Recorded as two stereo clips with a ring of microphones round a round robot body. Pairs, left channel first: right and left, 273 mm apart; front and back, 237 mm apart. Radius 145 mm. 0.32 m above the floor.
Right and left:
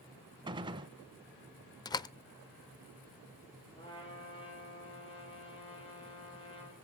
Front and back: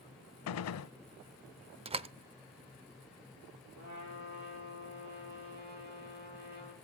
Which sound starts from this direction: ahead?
A gunshot, at 0.5 s.